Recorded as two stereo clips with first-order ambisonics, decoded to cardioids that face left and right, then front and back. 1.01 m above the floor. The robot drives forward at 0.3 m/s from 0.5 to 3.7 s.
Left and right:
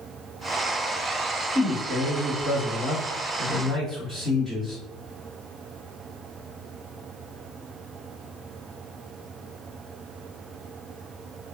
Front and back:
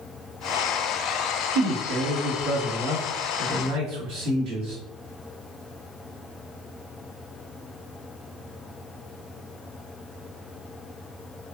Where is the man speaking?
175° left, 1.1 m.